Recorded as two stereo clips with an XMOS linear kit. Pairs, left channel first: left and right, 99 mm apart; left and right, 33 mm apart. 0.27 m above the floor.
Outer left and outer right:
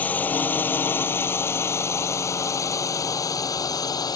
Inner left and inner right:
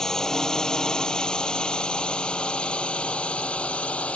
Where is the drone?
15° left (ahead or behind); by 4.2 s 40° left (ahead or behind).